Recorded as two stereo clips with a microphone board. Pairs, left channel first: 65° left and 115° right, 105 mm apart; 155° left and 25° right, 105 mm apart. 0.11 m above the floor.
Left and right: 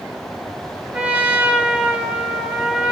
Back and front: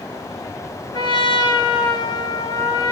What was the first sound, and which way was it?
A trumpet, 170° left.